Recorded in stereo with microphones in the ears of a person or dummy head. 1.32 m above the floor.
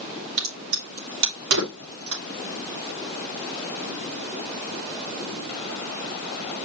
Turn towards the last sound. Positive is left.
turn(degrees=-65)  # may be behind; listen again after turning